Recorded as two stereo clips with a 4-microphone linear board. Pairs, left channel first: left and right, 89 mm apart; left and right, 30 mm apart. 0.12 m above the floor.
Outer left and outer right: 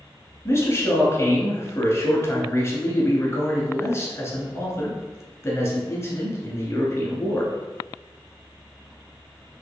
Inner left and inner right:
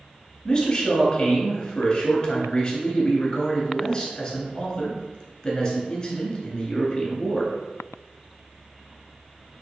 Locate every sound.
0.5 s a man speaking: 30° left (ahead or behind), 1.2 m